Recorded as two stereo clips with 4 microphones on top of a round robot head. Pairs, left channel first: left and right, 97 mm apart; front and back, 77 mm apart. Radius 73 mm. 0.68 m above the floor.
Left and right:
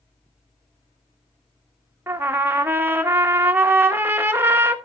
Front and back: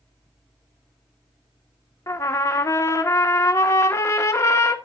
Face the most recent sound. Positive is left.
turn(degrees=-35)